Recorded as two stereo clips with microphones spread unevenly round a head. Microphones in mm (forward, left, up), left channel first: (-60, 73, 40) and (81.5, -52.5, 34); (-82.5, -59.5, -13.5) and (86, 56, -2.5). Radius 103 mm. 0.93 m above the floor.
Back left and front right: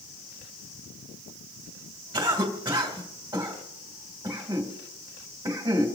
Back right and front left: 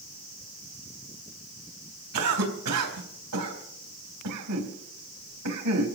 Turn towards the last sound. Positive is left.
turn(degrees=30)